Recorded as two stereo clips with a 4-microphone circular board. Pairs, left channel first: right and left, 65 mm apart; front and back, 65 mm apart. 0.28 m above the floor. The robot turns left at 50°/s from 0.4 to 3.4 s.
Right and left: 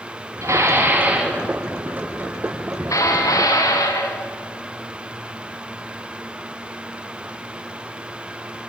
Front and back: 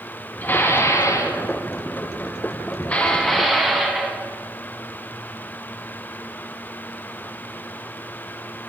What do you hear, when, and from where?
0.4 s dishes clattering: 60° left, 1.6 m; by 4.2 s 90° right, 1.6 m